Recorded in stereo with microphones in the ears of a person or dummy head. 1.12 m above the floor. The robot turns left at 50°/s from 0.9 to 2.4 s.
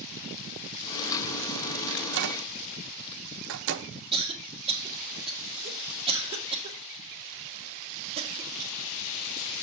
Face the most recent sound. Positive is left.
turn(degrees=-25)  # may be behind; listen again after turning